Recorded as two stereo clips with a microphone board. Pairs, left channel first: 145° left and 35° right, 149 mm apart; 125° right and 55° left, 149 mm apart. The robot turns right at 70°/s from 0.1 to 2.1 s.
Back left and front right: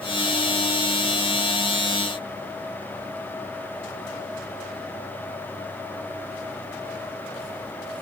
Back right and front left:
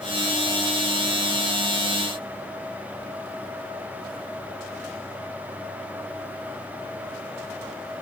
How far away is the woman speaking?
No woman speaking in this recording.